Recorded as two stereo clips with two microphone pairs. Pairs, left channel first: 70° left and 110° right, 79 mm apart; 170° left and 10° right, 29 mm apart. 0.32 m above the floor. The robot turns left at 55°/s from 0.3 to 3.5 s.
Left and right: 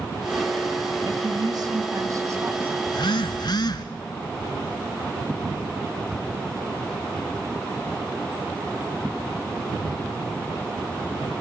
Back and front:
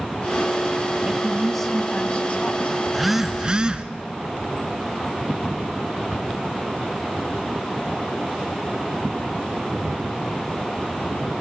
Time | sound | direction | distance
1.1 | a woman speaking | 85° right | 2.5 m
2.9 | a phone buzzing | 85° left | 1.2 m